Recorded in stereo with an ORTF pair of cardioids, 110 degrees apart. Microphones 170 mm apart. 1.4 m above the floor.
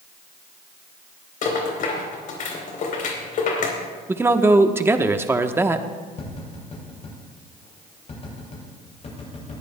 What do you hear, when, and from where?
1.4 s a rattle: 55° left, 3.5 m
4.1 s a man speaking: 15° right, 1.0 m
6.2 s tapping: 40° left, 7 m